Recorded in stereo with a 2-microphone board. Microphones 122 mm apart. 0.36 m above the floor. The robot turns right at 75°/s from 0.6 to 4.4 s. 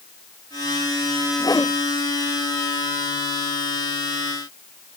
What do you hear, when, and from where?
1.4 s a whoosh: 35° left (ahead or behind); by 1.7 s 20° left (ahead or behind)